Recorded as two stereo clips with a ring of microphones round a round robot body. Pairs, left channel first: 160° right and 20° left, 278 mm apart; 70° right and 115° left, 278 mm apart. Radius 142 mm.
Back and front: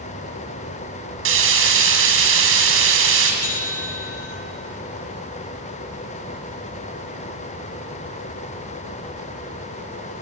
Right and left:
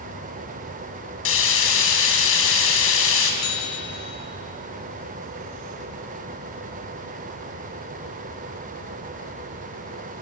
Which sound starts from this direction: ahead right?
Frying, at 1.2 s.